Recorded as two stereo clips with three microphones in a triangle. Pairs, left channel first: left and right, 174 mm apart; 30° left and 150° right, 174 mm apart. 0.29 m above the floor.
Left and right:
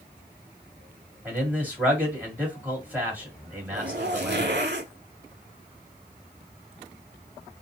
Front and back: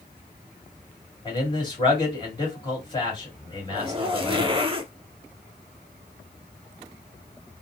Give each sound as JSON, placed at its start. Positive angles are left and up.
{"t": 1.2, "sound": "a man speaking", "azimuth_deg": -15, "distance_m": 1.9}
{"t": 3.7, "sound": "a zipper", "azimuth_deg": -90, "distance_m": 0.5}